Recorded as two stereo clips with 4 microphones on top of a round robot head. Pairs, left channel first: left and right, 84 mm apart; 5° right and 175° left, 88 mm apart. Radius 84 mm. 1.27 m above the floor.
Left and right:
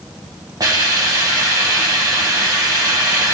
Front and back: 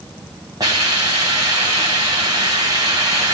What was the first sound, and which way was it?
A hiss, 130° right.